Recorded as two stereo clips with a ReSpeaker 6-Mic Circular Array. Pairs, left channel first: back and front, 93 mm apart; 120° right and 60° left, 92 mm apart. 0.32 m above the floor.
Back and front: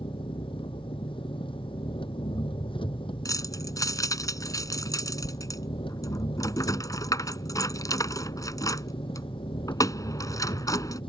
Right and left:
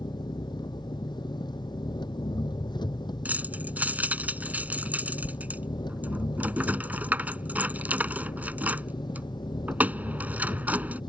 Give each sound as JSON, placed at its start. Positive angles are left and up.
{"t": 0.0, "sound": "an engine running", "azimuth_deg": -160}
{"t": 3.2, "sound": "keys jangling", "azimuth_deg": 130}